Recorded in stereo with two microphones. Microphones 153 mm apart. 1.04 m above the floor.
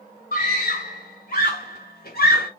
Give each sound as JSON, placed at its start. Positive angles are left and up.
{"t": 0.3, "sound": "a scream", "side_deg": 55, "distance_m": 2.5}